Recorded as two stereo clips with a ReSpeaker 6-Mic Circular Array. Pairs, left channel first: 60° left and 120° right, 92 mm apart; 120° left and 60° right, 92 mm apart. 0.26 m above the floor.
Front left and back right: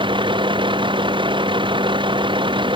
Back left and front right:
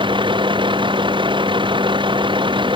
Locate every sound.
0.0 s a vehicle: 90° right